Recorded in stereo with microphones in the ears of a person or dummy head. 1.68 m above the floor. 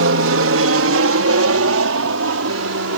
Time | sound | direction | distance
0.0 | an aircraft | 70° right (ahead or behind) | ?